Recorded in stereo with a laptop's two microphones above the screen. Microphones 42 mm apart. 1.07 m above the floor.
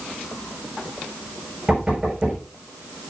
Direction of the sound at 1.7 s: 20° right (ahead or behind).